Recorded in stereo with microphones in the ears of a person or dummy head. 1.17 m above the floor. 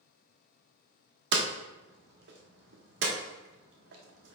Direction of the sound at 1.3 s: 70° right (ahead or behind).